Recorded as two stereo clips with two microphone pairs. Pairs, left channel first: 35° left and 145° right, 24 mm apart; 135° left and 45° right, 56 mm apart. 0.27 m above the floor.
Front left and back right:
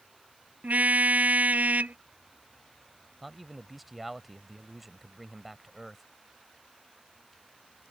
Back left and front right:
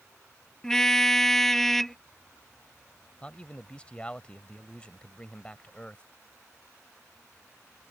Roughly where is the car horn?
Behind right.